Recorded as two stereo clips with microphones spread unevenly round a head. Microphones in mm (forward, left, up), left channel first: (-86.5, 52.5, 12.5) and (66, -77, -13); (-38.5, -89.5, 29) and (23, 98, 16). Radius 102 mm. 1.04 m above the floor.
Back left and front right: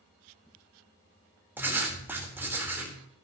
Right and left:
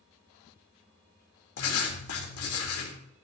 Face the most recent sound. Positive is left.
turn(degrees=-120)